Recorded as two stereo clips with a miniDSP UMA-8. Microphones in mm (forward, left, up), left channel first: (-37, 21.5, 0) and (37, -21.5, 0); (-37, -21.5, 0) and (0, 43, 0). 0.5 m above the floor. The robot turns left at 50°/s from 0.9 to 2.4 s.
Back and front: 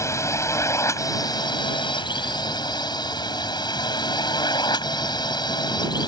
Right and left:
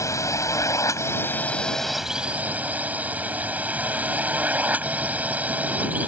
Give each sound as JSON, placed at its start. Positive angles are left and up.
{"t": 0.0, "sound": "a drone", "azimuth_deg": -160}